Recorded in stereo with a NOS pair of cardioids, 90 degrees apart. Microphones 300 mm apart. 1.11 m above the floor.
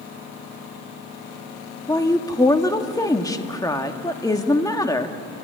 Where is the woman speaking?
10° left, 1.7 m.